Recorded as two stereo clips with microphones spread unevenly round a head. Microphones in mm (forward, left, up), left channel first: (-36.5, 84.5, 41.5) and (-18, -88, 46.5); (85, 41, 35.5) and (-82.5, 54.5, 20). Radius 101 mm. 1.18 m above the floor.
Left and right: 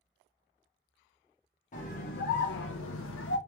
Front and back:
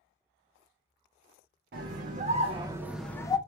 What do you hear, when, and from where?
1.7 s a scream: 140° left, 1.0 m; by 3.4 s 60° left, 0.7 m